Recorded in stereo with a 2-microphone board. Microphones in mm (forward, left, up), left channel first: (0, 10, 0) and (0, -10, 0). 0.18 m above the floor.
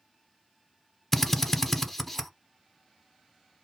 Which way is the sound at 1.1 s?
5° left (ahead or behind).